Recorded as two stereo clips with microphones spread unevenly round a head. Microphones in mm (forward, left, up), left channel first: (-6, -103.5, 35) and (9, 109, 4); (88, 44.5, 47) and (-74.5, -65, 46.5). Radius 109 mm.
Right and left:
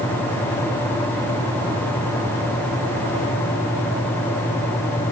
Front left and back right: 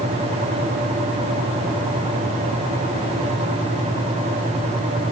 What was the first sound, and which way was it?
Only background noise.